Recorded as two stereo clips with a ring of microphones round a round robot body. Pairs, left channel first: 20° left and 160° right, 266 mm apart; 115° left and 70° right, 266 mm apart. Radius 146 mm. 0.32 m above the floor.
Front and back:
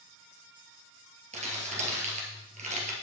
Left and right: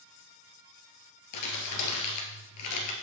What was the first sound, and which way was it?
Crumpling, 135° left.